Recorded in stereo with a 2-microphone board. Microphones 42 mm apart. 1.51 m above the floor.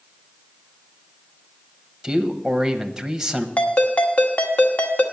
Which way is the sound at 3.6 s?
40° left (ahead or behind).